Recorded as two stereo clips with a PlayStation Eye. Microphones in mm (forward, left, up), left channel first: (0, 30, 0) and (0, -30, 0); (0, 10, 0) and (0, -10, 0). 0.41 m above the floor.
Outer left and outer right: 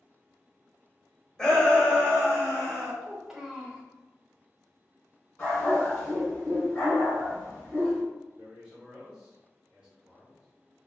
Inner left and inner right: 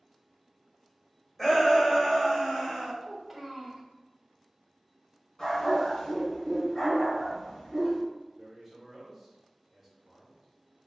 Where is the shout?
10° left (ahead or behind), 1.6 m; by 2.9 s 25° left (ahead or behind), 1.7 m.